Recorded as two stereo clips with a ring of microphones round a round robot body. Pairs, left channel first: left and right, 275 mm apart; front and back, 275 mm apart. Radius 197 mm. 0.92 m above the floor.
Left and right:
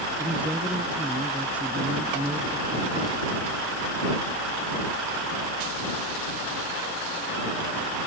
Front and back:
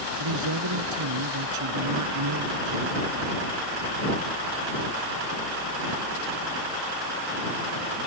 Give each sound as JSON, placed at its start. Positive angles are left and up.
{"t": 0.2, "sound": "a man speaking", "azimuth_deg": -175}